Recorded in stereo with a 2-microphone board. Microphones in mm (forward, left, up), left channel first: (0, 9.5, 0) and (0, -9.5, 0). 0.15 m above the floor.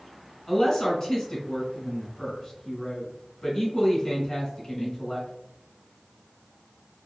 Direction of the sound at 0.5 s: 25° left (ahead or behind).